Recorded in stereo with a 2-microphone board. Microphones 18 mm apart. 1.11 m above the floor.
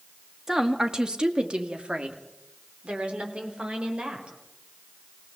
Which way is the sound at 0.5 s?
20° right (ahead or behind).